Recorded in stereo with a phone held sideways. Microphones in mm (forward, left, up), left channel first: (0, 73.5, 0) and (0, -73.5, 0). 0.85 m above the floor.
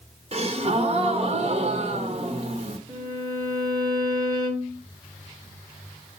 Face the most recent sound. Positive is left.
turn(degrees=-30)  # may be behind; listen again after turning